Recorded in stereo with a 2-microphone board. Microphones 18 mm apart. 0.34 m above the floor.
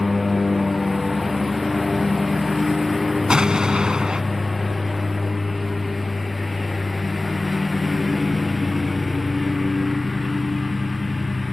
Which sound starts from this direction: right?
An explosion, at 3.3 s.